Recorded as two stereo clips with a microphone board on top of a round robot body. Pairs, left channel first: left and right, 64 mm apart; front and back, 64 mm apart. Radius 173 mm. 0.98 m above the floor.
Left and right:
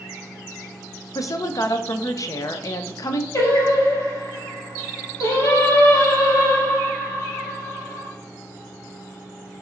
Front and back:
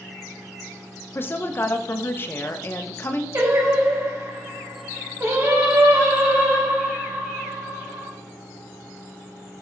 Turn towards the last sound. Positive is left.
turn(degrees=135)